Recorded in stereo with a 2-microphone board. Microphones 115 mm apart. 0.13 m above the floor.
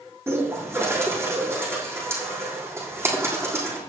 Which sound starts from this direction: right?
A bird, at 0.3 s.